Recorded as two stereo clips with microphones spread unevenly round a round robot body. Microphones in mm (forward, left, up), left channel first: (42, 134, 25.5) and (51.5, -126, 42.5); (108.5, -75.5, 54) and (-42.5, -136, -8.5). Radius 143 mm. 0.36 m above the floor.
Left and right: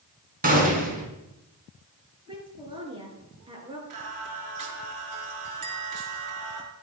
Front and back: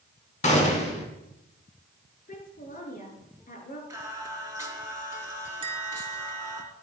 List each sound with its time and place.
0.4 s a gunshot: 30° right, 4.5 m
2.3 s a woman speaking: 15° right, 5 m
3.9 s singing: 90° right, 4 m
5.6 s a bell: 105° right, 3.5 m